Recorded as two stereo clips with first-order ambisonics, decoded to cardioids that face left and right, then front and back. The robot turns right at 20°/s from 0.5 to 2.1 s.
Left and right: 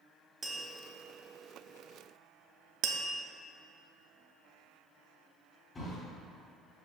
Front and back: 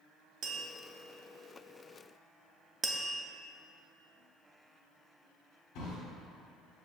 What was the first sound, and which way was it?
Tapping, 155° right.